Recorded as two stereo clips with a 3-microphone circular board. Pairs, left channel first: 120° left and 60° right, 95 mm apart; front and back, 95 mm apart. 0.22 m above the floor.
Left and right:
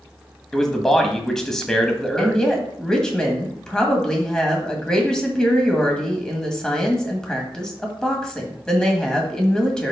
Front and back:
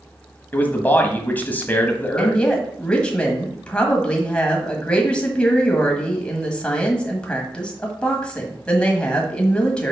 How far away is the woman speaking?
About 1.5 m.